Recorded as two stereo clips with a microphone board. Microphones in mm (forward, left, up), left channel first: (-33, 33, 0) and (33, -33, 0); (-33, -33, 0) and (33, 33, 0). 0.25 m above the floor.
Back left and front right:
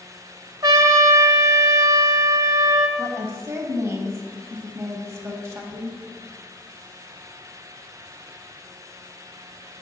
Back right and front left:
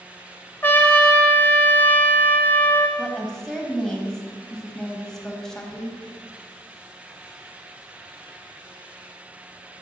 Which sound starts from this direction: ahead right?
A woman speaking, at 3.0 s.